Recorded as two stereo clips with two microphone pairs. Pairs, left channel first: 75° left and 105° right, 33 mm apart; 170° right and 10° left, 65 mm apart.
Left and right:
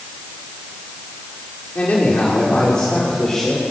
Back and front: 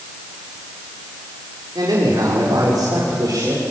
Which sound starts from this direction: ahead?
A man speaking, at 1.8 s.